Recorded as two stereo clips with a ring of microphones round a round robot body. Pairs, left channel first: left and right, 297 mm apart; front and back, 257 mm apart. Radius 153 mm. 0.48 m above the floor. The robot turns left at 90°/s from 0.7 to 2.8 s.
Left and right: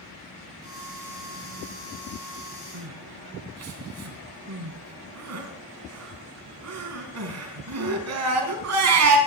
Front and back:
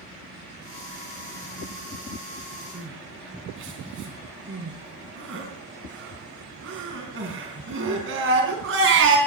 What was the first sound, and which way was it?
Crying, 125° right.